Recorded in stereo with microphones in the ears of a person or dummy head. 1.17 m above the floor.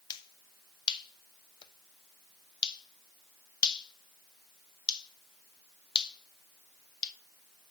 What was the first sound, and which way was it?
A finger snap, 25° left (ahead or behind).